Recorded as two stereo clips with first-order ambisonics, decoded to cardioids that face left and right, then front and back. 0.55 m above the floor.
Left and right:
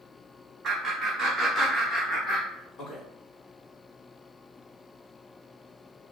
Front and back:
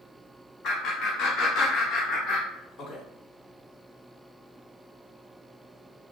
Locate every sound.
0.6 s laughter: 30° right, 1.2 m; by 3.0 s 55° left, 1.6 m